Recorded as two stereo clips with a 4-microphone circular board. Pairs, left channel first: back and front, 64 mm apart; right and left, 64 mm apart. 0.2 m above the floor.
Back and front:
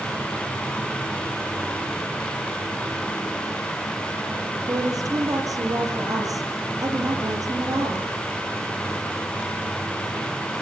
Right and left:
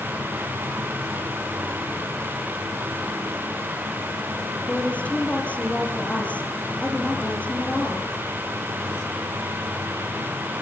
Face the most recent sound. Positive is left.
turn(degrees=-25)